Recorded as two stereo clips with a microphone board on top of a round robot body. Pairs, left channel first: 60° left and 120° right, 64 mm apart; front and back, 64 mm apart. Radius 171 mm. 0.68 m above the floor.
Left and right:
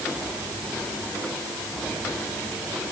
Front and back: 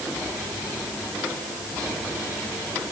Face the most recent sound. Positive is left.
No sound to turn to.